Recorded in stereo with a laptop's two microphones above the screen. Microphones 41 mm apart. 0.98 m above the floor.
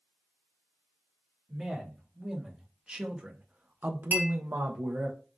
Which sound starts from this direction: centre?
A man speaking, at 1.5 s.